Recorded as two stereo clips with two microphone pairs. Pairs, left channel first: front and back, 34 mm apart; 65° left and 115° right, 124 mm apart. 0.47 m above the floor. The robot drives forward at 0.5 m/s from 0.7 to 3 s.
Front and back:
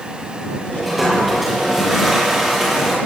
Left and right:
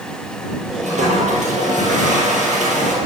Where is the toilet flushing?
95° right, 7.5 m; by 3.0 s 100° right, 8 m.